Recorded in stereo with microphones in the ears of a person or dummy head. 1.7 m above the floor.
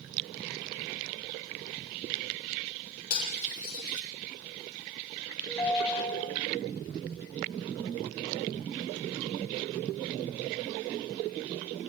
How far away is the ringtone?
About 4.5 m.